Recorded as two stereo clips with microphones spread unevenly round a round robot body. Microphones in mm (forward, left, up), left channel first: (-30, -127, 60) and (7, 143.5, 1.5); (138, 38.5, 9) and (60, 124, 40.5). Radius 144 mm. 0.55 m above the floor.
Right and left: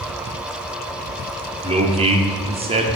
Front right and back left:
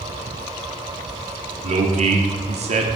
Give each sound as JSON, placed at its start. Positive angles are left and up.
{"t": 1.6, "sound": "a man speaking", "azimuth_deg": 125, "distance_m": 1.1}